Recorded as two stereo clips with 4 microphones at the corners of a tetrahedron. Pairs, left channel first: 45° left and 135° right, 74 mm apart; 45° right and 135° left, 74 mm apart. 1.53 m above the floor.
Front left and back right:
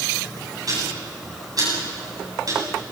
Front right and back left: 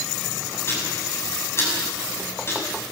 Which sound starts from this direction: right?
Ticking, at 0.7 s.